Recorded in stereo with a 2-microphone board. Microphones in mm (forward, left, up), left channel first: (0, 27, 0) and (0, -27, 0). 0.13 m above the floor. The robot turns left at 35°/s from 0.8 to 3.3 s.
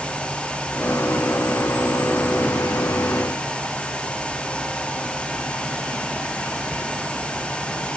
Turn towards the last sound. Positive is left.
No sound to turn to.